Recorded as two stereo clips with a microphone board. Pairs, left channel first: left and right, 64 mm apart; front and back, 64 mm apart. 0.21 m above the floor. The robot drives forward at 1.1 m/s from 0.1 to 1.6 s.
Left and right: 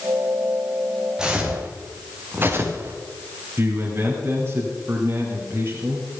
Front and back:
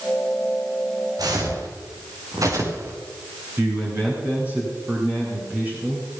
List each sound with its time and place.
1.2 s footsteps: 170° right, 3.5 m; by 2.9 s 135° right, 3.5 m
3.6 s a man speaking: 130° right, 2.5 m